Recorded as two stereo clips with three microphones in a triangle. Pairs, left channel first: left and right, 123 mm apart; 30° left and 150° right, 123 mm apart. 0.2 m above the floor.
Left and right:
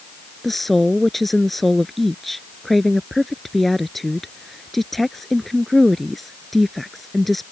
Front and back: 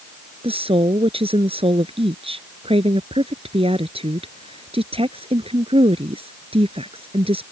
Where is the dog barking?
I don't hear a dog barking.